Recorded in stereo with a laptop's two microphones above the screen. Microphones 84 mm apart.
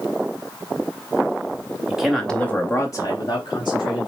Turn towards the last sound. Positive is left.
turn(degrees=65)  # may be behind; listen again after turning